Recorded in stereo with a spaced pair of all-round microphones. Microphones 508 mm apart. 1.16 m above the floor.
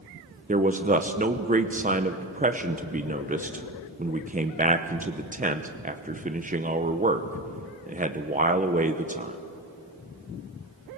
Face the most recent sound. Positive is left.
turn(degrees=-15)  # may be behind; listen again after turning